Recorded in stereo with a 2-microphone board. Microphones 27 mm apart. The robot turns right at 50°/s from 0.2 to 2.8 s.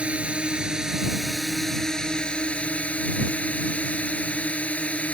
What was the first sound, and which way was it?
A drone, 60° right.